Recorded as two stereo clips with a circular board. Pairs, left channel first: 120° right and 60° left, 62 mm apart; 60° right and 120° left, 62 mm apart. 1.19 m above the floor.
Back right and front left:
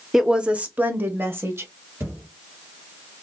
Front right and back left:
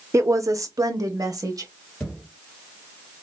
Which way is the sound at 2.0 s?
15° left.